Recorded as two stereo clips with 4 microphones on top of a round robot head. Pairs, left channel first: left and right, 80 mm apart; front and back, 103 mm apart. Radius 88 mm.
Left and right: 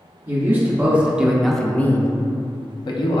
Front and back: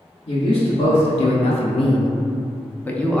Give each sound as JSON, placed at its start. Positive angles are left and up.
{"t": 0.3, "sound": "a man speaking", "azimuth_deg": -35, "distance_m": 1.1}